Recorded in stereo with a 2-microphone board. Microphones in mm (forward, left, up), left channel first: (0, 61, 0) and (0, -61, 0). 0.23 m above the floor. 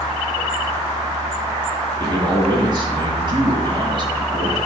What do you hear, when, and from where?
2.0 s a man speaking: 40° right (ahead or behind), 1.8 m